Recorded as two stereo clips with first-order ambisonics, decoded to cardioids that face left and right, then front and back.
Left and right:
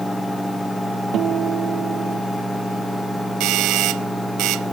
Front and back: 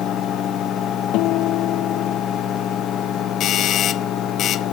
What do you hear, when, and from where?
1.1 s a guitar: 35° right
3.4 s a doorbell: 55° right